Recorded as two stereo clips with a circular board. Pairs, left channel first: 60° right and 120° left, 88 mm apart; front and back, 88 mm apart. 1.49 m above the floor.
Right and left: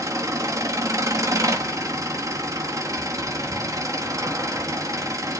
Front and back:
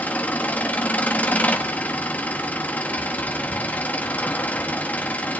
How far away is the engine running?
About 1.4 m.